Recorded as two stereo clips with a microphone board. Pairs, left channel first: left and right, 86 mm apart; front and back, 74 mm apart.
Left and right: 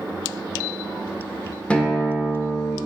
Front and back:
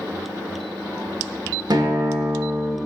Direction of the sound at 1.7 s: 165° left.